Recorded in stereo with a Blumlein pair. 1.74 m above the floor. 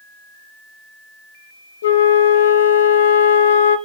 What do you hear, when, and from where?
1.8 s a flute: 60° left, 0.9 m